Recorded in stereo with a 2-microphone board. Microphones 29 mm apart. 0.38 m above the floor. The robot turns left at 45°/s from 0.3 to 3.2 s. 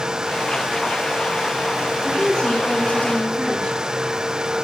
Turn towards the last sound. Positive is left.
turn(degrees=90)